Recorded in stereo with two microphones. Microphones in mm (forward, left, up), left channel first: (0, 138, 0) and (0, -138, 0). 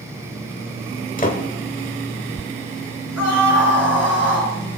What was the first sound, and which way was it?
A door slam, 30° left (ahead or behind).